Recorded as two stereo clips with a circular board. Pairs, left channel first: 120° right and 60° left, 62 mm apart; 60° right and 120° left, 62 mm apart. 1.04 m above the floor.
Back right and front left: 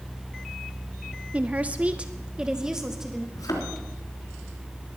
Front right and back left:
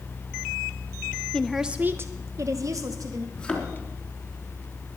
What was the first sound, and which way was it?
A woman speaking, 5° left.